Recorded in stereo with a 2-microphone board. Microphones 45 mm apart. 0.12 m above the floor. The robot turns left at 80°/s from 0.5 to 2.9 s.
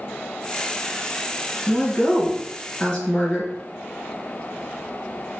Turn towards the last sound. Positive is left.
turn(degrees=35)